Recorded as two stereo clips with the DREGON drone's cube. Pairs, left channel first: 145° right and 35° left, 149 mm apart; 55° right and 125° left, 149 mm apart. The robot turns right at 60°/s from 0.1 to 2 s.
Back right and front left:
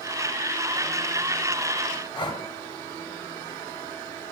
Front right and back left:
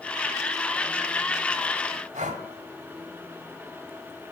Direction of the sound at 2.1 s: 160° left.